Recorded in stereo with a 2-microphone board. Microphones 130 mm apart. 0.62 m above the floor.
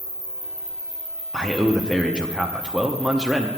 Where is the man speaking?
5° right (ahead or behind), 0.6 m.